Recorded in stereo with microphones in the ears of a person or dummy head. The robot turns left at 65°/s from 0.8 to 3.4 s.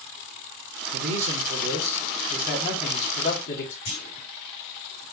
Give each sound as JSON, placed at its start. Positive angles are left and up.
{"t": 0.9, "sound": "a man speaking", "azimuth_deg": -85, "distance_m": 1.1}
{"t": 3.9, "sound": "a clunk", "side_deg": 40, "distance_m": 2.5}